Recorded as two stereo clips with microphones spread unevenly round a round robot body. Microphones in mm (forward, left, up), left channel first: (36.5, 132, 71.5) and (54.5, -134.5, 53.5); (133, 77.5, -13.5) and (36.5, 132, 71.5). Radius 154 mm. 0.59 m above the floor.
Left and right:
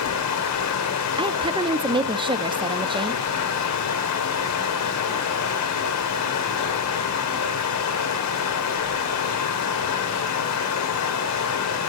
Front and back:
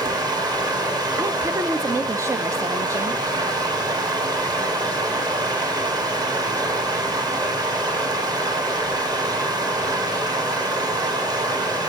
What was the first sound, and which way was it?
Running water, 80° left.